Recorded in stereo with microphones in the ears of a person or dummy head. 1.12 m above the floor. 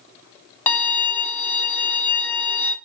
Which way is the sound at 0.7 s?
15° left (ahead or behind).